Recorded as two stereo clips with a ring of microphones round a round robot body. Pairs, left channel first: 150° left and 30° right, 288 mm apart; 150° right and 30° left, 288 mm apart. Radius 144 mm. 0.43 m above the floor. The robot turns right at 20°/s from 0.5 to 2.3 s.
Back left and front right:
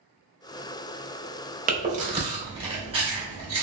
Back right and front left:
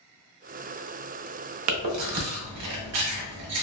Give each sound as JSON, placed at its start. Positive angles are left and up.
{"t": 1.7, "sound": "chewing", "azimuth_deg": 25, "distance_m": 0.8}